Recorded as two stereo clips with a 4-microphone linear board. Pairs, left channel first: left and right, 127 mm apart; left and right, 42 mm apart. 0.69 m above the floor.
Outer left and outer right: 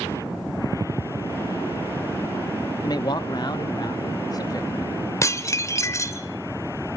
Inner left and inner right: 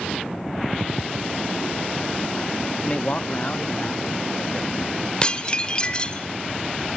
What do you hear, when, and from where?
2.8 s a man speaking: 30° left (ahead or behind), 0.8 m
5.2 s dishes clattering: 25° left (ahead or behind), 1.6 m